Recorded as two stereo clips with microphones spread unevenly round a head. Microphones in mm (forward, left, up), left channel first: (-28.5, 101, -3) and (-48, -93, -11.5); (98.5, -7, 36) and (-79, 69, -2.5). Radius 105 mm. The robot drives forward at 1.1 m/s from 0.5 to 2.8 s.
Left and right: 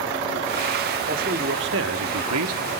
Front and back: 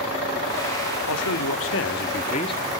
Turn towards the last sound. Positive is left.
turn(degrees=-105)